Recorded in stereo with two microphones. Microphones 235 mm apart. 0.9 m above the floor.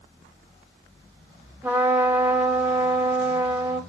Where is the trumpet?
10° right (ahead or behind), 0.7 m.